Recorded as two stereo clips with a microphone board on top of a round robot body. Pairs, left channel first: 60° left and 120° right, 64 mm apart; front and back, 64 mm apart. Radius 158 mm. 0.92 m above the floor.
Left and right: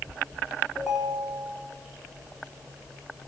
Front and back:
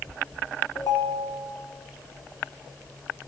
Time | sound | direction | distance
0.8 | a ringtone | 25° right | 0.9 m